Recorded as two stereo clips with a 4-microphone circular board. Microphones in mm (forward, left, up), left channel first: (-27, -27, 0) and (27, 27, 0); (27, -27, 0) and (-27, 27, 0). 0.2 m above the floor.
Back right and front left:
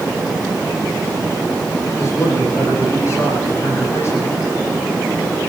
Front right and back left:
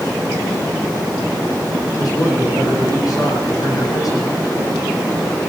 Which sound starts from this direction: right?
A man speaking, at 2.0 s.